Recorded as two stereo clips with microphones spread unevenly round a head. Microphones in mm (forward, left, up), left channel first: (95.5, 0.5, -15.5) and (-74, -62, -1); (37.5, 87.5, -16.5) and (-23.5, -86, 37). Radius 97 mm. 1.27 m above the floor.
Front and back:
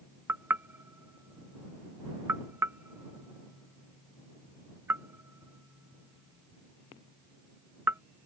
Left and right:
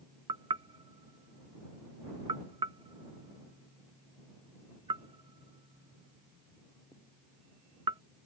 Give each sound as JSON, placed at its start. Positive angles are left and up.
{"t": 0.3, "sound": "knocking", "azimuth_deg": -95}